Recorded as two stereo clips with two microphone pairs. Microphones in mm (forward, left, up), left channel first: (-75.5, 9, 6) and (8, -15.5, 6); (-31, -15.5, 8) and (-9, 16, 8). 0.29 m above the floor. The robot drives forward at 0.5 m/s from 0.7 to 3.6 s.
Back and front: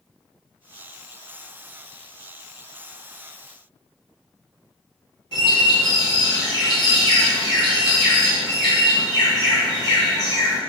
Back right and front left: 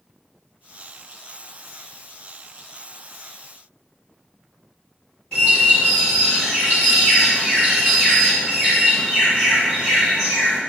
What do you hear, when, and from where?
5.3 s a bird: 170° left, 1.8 m